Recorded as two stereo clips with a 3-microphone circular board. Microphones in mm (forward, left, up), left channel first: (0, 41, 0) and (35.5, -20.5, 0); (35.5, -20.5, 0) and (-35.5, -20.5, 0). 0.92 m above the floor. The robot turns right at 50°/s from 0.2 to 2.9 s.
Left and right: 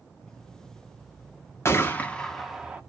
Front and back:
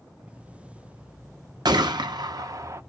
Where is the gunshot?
170° left, 0.5 m; by 2.8 s 135° right, 0.5 m.